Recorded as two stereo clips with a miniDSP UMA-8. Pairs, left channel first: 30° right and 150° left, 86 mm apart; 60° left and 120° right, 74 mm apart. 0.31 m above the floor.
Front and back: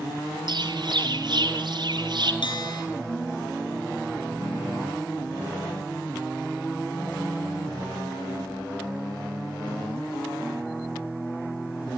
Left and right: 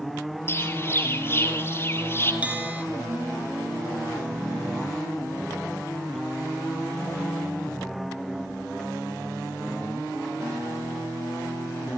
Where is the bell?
50° right, 3 m.